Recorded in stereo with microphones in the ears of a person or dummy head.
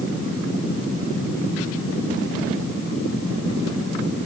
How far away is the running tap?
No running tap in this recording.